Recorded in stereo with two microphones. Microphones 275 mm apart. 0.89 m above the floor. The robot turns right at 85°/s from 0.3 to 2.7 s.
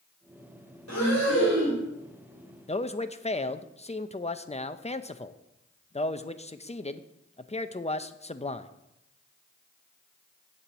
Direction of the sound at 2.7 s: 25° left (ahead or behind).